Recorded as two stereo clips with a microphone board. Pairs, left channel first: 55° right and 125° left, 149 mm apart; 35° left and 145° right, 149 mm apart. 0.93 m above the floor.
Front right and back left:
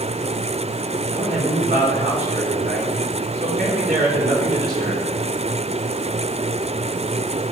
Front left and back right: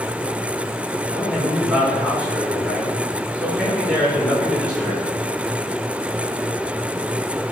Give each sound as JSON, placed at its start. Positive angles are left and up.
{"t": 1.1, "sound": "a man speaking", "azimuth_deg": 130, "distance_m": 3.0}